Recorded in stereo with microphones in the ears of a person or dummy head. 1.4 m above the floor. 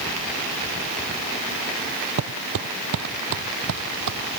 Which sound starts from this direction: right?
Footsteps, at 2.2 s.